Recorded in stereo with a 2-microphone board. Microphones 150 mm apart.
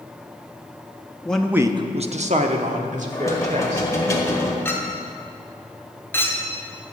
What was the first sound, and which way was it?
A man speaking, 10° left (ahead or behind).